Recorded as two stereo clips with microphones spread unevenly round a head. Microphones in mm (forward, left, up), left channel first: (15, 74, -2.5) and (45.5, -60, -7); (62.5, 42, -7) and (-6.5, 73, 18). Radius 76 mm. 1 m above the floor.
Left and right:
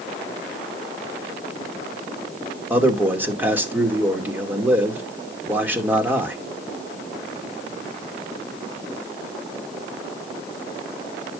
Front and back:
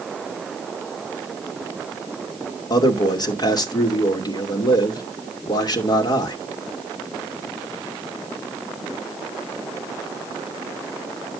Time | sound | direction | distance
2.7 | a man speaking | straight ahead | 2.5 m